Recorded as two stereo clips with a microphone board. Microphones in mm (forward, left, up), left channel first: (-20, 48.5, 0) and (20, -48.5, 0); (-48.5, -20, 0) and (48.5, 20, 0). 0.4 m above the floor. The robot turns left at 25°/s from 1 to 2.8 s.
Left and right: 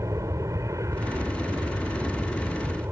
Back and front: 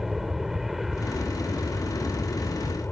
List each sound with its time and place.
0.0 s an aircraft: 60° right; by 2.9 s 105° right